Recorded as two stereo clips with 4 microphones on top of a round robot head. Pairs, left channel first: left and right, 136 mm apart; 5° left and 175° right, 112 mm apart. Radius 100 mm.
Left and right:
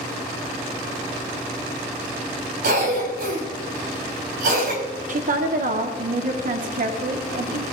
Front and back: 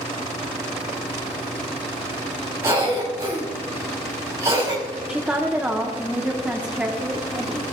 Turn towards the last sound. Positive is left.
turn(degrees=-95)